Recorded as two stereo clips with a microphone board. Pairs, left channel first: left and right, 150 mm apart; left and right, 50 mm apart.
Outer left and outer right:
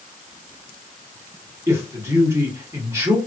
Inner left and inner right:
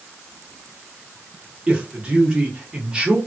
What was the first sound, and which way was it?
A man speaking, 20° right (ahead or behind).